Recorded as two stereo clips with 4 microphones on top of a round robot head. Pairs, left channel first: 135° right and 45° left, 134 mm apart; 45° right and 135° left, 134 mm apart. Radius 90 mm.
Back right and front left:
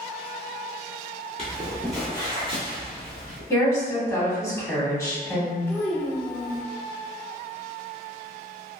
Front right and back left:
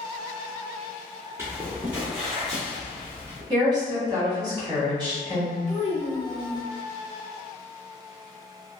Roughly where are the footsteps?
Behind.